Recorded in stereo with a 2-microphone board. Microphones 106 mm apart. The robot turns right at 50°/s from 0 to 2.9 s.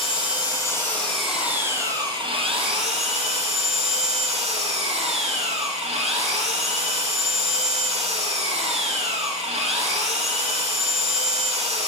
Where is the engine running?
120° left, 3 m; by 11.9 s 95° right, 3 m.